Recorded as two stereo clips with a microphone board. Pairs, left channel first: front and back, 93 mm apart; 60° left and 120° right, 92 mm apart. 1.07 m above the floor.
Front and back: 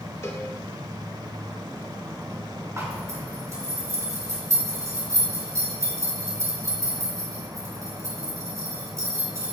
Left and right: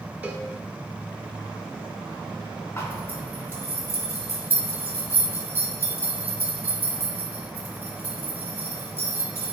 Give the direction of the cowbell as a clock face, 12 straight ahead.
2 o'clock.